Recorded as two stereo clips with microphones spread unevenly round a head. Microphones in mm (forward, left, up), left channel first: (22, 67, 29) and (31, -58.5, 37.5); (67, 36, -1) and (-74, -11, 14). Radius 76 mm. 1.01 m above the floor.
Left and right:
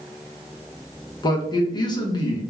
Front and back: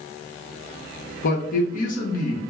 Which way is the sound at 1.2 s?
40° left.